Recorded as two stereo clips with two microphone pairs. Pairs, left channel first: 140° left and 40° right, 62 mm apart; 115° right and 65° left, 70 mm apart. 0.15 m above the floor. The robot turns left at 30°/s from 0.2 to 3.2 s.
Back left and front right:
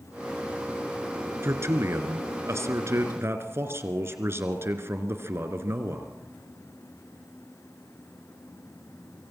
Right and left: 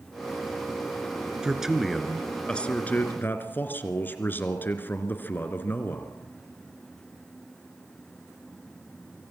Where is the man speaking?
15° right, 2.5 m; by 6.2 s 65° right, 2.5 m.